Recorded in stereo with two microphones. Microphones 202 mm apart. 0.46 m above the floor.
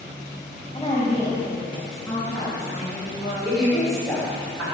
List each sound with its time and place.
0.7 s a woman speaking: 20° left (ahead or behind), 2 m; by 3.3 s 5° left (ahead or behind), 6 m
3.4 s a woman speaking: centre (ahead or behind), 3 m